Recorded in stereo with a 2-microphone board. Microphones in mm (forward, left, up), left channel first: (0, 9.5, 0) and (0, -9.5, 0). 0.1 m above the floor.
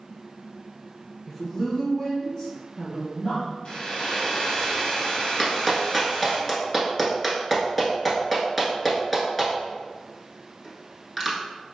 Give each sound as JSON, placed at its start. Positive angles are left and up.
{"t": 1.3, "sound": "a woman speaking", "side_deg": 0, "distance_m": 1.6}
{"t": 3.6, "sound": "a hair dryer", "side_deg": 55, "distance_m": 2.0}
{"t": 5.4, "sound": "a clap", "side_deg": 5, "distance_m": 1.2}